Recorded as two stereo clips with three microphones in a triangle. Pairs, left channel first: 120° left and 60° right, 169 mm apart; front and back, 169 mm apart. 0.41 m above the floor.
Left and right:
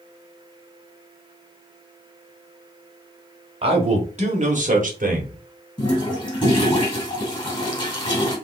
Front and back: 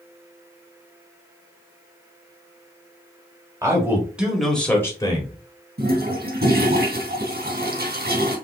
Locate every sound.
3.6 s a man speaking: 110° right, 1.9 m; by 5.3 s 50° right, 1.4 m
5.8 s a toilet flushing: straight behind, 2.5 m